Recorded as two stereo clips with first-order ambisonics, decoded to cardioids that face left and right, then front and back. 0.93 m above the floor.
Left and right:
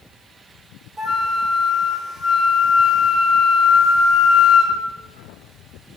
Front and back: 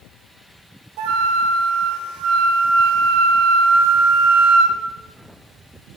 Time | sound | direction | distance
1.0 | a flute | 160° right | 1.8 m